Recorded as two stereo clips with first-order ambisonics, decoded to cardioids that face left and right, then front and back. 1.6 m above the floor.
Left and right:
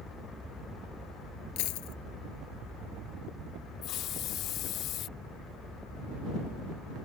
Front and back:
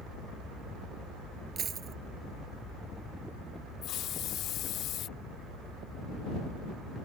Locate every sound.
1.6 s a dropped coin: 115° left
3.8 s a hiss: 45° left